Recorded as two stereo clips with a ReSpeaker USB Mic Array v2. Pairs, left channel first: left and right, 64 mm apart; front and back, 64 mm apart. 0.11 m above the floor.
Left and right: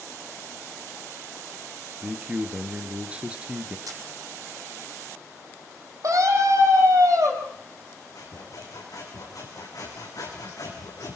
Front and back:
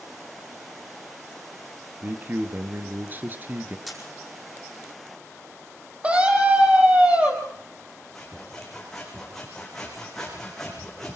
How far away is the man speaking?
About 2.0 m.